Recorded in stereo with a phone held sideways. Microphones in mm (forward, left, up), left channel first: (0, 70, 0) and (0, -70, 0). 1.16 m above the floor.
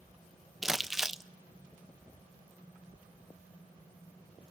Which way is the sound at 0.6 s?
Centre (ahead or behind).